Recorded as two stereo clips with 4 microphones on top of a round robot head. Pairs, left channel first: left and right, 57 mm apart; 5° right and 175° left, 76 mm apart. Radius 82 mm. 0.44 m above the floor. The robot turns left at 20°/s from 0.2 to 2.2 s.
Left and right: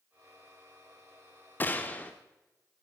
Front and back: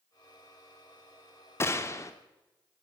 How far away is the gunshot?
About 0.6 m.